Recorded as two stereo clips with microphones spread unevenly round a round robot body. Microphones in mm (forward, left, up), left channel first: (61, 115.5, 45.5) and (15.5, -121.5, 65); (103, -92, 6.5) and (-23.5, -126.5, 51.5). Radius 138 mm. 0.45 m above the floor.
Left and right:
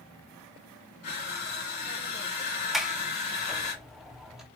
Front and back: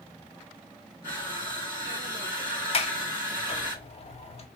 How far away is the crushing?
About 2 m.